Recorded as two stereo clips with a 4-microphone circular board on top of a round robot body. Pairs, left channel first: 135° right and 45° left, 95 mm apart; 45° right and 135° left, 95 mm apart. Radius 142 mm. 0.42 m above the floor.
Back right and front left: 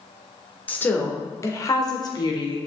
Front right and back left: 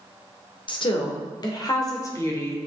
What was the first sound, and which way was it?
A woman speaking, 65° right.